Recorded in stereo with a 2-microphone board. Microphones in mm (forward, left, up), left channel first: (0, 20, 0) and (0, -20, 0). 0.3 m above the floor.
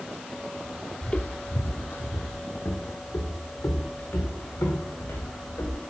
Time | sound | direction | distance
1.0 | footsteps | 25° left (ahead or behind) | 0.6 m